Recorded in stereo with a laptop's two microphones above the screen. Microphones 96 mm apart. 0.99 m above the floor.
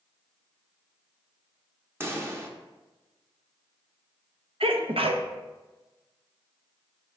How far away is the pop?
About 0.9 m.